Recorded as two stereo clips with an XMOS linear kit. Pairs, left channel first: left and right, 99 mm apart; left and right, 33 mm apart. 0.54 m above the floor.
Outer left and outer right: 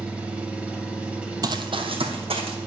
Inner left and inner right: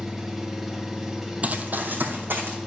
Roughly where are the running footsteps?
Right.